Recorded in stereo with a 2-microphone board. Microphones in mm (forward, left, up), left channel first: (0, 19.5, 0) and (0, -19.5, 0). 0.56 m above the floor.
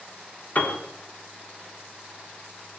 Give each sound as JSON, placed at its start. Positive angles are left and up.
{"t": 0.6, "sound": "a piano", "side_deg": 45, "distance_m": 1.6}